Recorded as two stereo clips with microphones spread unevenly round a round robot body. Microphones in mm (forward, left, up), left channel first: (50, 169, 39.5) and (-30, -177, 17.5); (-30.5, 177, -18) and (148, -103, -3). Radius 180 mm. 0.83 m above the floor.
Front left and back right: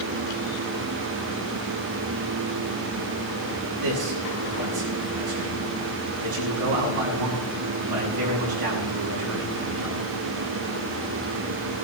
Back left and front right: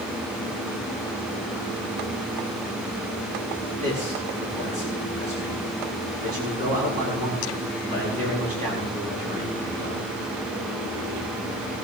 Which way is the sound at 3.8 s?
130° right.